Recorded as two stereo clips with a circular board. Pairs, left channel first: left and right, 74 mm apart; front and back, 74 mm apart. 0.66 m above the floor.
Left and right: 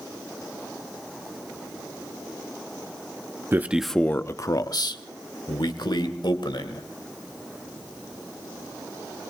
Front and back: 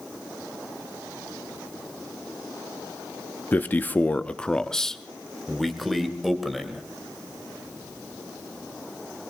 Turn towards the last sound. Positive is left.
turn(degrees=90)